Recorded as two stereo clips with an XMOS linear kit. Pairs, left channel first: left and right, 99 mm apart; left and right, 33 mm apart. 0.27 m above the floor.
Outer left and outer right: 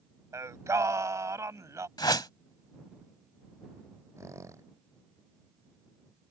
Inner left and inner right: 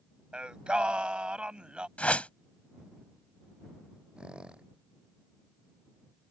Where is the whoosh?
45° left (ahead or behind).